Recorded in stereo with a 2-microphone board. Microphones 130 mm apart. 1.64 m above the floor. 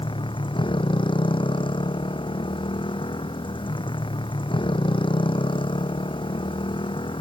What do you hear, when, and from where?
0.0 s a motorcycle: 40° left (ahead or behind)